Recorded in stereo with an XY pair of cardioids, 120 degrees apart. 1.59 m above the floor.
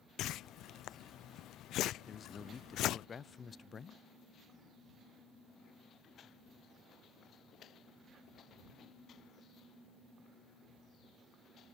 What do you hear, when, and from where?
0.2 s a whoosh: 65° left
2.1 s a man speaking: 30° left